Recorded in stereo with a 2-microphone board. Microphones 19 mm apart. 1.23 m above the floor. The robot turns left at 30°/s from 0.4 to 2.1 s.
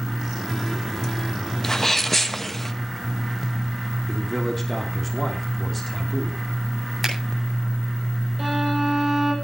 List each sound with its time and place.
1.6 s a sneeze: 35° left (ahead or behind), 1.3 m; by 2.7 s 25° left (ahead or behind), 1.3 m
4.1 s a man speaking: 15° left (ahead or behind), 3 m
7.0 s a finger snap: 5° left (ahead or behind), 8.5 m
8.4 s a violin: centre (ahead or behind), 7 m